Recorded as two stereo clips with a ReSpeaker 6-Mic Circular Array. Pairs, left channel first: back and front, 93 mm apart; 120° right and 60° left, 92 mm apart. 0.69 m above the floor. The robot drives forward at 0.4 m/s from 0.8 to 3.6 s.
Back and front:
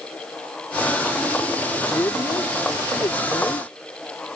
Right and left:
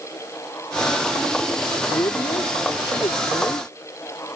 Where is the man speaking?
130° right; by 3.7 s 150° right.